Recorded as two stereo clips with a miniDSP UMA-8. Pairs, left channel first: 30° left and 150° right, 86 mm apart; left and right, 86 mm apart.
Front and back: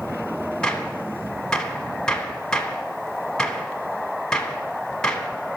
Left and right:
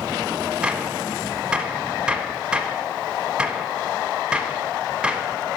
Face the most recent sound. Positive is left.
turn(degrees=-35)